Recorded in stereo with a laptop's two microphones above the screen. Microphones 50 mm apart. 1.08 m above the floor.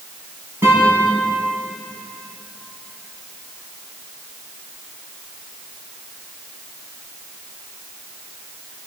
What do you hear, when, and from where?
0.6 s a guitar: 45° right (ahead or behind), 9.5 m